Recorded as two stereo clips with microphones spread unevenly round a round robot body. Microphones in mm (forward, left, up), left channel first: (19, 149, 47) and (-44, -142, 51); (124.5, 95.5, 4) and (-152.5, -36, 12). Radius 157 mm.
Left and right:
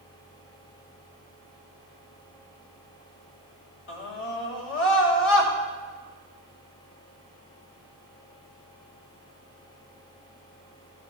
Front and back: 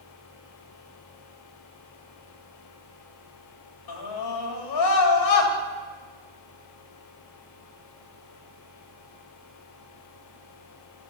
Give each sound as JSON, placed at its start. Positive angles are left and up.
{"t": 3.9, "sound": "a scream", "azimuth_deg": 30, "distance_m": 3.0}